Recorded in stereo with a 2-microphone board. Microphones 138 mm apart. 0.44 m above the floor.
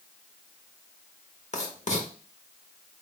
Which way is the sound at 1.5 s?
55° left (ahead or behind).